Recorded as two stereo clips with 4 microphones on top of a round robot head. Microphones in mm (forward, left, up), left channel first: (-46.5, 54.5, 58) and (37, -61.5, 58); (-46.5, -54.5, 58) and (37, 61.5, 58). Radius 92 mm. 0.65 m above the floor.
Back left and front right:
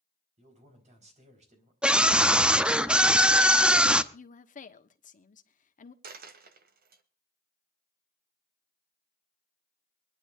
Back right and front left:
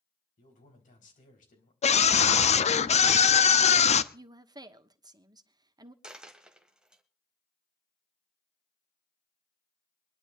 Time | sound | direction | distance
0.4 | a man speaking | 95° right | 4.5 m
1.8 | a scream | 135° right | 0.8 m
4.1 | a woman speaking | 115° left | 1.3 m
6.0 | a dropped coin | 30° right | 1.4 m